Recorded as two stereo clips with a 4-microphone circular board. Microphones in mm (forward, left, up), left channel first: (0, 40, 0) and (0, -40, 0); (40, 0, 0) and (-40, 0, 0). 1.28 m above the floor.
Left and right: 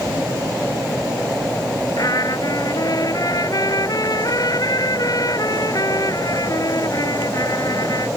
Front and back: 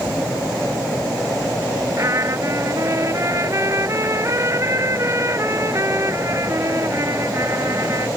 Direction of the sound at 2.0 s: 130° left.